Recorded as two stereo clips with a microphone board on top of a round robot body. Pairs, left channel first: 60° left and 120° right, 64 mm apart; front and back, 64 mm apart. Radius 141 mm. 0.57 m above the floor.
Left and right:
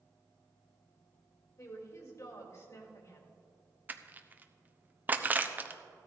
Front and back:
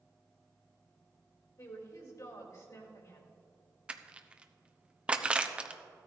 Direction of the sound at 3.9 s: 125° right.